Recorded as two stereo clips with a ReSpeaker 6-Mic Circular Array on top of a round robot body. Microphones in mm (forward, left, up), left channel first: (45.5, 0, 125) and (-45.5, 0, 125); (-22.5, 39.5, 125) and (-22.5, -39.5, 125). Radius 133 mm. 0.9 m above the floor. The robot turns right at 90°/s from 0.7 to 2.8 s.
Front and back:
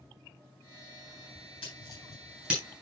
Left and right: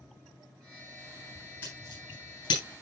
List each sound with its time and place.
1.6 s scissors: 20° left, 9.5 m; by 2.6 s 110° left, 9.5 m